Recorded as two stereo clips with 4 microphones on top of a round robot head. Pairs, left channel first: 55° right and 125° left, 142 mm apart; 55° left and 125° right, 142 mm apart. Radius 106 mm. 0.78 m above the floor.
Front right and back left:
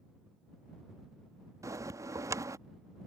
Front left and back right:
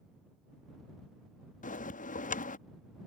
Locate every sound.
1.6 s a bell: 60° left